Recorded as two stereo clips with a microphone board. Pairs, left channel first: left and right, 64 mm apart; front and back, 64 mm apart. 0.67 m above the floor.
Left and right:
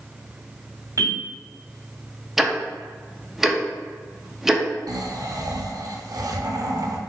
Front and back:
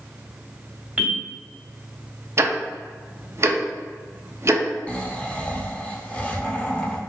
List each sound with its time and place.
1.0 s a bell: 115° right, 1.8 m
2.4 s ticking: 170° right, 0.5 m
4.9 s snoring: 70° right, 0.6 m